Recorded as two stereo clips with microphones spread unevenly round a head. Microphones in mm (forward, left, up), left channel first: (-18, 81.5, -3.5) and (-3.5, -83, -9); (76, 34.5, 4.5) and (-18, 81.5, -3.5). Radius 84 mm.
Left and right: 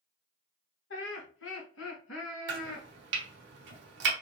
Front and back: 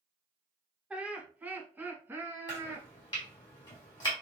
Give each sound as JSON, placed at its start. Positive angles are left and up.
{"t": 0.9, "sound": "laughter", "azimuth_deg": 75, "distance_m": 1.2}
{"t": 2.5, "sound": "chopping", "azimuth_deg": -90, "distance_m": 1.2}